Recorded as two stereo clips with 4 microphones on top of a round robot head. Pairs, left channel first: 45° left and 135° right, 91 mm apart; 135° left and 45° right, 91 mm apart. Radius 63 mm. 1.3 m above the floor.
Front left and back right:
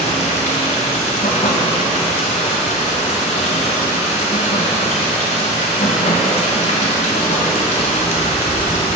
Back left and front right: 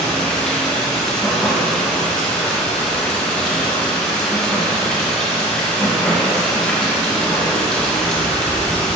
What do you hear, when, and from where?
0.0 s running water: 50° left, 0.8 m